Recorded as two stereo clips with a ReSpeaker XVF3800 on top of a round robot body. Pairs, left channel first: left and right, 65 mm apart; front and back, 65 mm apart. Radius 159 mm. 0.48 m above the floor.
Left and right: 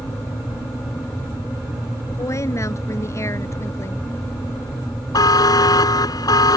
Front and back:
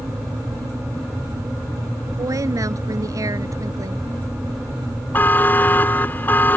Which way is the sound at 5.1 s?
65° left.